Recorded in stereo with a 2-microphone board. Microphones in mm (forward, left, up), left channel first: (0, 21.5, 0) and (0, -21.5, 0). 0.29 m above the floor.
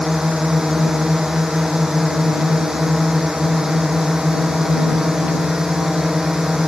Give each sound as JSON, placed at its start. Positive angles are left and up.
{"t": 0.0, "sound": "a drone", "side_deg": -10}